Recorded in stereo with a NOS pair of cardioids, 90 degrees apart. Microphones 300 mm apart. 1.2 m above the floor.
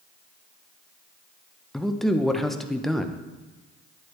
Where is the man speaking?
Straight ahead, 0.6 m.